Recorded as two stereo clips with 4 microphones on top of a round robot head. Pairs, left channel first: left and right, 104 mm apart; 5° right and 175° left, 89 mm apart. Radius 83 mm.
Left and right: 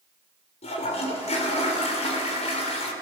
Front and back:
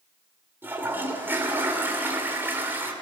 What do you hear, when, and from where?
0.6 s a toilet flushing: 105° left, 3 m